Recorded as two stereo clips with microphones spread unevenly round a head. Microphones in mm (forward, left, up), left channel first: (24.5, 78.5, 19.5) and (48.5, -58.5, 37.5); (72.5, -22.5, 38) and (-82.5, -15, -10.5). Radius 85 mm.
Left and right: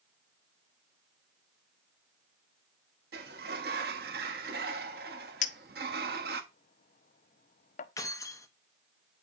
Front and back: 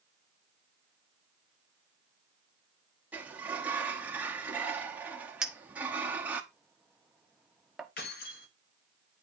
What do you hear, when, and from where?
3.1 s a sliding door: 95° right, 1.0 m
5.4 s a clink: 75° left, 0.6 m
8.0 s keys jangling: 30° left, 1.1 m